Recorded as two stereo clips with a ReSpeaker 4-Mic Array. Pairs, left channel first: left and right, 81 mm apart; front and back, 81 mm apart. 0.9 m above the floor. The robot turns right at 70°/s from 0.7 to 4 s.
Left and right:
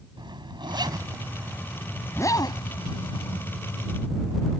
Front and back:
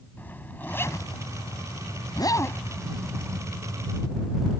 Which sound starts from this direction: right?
A zipper, at 0.2 s.